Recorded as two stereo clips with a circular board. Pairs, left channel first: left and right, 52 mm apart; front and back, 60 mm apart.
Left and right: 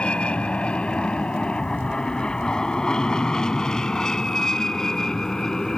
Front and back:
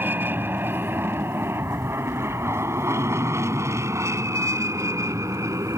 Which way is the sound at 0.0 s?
145° left.